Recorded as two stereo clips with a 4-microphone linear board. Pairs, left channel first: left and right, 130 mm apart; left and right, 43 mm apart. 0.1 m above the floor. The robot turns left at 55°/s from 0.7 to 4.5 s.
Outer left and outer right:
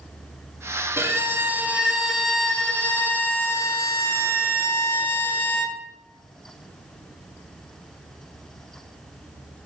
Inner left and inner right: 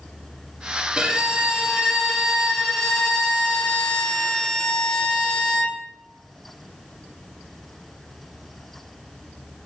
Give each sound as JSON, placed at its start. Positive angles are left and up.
{"t": 1.0, "sound": "a violin", "side_deg": -20, "distance_m": 0.7}